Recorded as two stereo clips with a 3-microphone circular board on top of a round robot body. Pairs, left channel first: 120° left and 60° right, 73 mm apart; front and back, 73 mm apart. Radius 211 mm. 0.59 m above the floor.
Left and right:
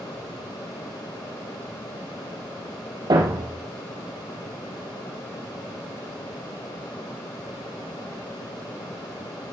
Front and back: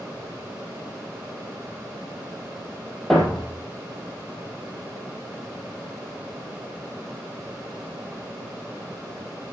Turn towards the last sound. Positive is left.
turn(degrees=-85)